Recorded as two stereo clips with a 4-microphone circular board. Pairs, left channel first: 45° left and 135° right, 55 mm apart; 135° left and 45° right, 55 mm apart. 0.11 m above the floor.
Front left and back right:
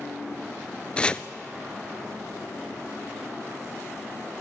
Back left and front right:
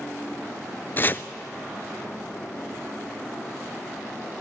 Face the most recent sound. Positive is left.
turn(degrees=105)